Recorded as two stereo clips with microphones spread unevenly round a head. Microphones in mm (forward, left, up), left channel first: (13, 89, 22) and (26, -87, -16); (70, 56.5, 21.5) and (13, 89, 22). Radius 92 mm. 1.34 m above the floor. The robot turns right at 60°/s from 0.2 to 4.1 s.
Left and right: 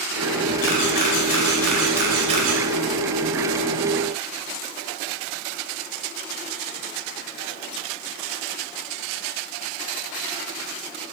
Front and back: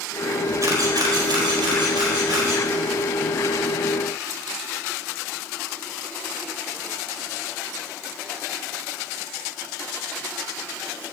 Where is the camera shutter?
115° left, 4 m; by 2.6 s 125° right, 4 m.